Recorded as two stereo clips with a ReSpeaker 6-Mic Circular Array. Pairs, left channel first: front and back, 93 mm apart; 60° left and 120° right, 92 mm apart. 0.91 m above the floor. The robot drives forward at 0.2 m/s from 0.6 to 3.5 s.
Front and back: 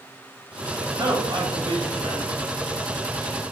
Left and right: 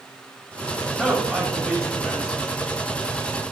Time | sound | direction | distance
0.8 | a man speaking | 150° left | 1.0 m